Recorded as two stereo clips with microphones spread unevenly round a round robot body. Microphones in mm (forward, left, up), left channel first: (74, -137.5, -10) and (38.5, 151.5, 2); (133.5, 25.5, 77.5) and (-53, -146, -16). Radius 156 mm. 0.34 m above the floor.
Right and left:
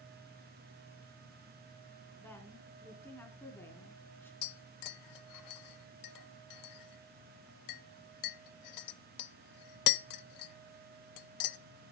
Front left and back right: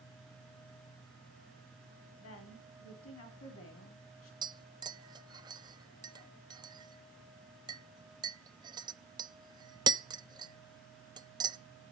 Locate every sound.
2.2 s a woman speaking: straight ahead, 3.5 m
4.4 s tapping: 75° right, 0.6 m